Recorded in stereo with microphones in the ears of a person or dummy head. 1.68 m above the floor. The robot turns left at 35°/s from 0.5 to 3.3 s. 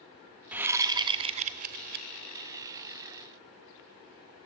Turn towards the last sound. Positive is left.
turn(degrees=-110)